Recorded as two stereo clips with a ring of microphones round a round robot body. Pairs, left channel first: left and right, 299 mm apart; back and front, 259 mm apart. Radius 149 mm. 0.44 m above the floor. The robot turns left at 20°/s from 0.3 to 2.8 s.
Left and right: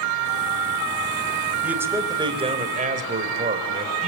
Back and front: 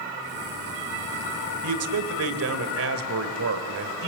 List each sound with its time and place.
1.6 s a man speaking: 5° right, 2.5 m; by 4.1 s 30° right, 2.5 m